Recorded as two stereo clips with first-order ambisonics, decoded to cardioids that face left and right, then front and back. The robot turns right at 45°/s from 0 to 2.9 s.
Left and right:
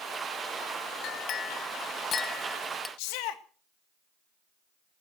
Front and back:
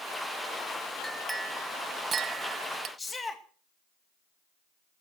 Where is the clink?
85° left, 0.8 m; by 2.9 s 165° left, 0.8 m.